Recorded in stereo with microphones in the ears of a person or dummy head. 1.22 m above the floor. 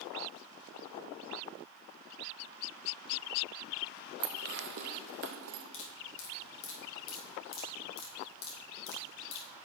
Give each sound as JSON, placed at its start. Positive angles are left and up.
{"t": 4.2, "sound": "dishes clattering", "side_deg": -45, "distance_m": 0.6}
{"t": 5.7, "sound": "dripping", "side_deg": 65, "distance_m": 2.5}